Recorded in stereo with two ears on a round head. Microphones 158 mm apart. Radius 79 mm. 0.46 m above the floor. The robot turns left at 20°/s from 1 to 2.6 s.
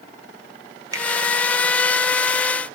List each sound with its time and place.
0.9 s a finger snap: 20° right (ahead or behind), 0.9 m